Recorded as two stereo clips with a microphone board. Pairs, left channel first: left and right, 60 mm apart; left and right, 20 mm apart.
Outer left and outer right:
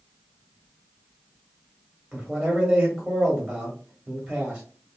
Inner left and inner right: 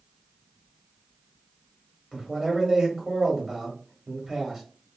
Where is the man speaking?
10° right (ahead or behind), 0.9 m.